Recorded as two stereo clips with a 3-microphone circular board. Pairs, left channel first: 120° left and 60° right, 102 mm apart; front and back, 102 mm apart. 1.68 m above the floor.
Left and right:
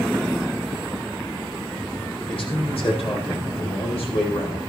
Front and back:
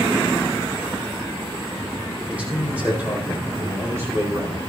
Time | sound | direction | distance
2.3 | a man speaking | 105° left | 5.5 m